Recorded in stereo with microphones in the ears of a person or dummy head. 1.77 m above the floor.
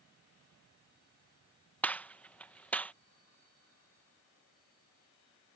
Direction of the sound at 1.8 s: 5° left (ahead or behind).